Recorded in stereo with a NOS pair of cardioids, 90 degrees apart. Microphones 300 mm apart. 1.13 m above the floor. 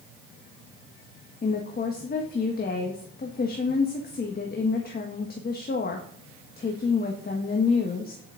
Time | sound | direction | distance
1.4 | a woman speaking | 30° left | 1.4 m